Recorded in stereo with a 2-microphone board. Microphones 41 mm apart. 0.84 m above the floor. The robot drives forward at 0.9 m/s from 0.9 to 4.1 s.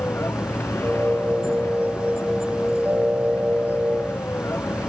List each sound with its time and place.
0.0 s a vehicle: 80° left; by 4.9 s 90° left